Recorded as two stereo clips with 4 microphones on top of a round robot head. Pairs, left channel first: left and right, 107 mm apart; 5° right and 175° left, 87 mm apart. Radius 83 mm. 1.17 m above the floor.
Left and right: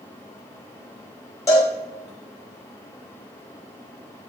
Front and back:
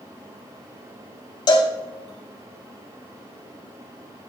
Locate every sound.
1.5 s a cowbell: 20° left, 1.0 m